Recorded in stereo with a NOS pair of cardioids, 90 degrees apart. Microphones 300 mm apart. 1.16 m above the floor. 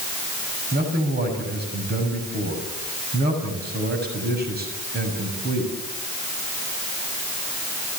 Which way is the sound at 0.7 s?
30° right.